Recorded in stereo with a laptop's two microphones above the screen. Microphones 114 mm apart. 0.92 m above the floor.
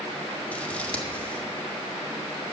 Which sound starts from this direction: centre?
Scissors, at 0.5 s.